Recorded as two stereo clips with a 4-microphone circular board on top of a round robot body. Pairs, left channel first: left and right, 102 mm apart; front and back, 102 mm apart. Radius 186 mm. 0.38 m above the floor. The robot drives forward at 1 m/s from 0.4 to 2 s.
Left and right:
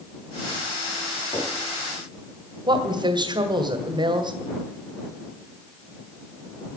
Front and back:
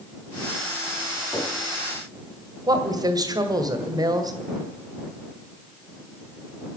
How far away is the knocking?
About 5 m.